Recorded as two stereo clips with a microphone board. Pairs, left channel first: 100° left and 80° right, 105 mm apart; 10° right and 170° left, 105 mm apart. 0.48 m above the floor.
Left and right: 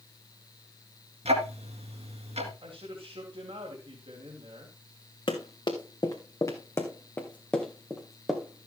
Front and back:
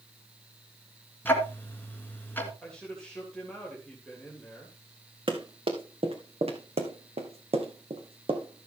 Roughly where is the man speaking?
Right.